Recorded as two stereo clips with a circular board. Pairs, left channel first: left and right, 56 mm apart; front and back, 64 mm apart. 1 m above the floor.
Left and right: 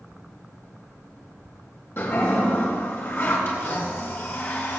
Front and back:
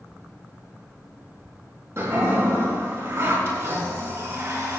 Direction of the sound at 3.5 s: 130° left.